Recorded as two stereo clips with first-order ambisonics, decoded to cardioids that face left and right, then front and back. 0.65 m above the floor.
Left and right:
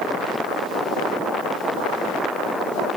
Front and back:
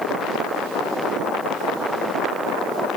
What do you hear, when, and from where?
Only background noise.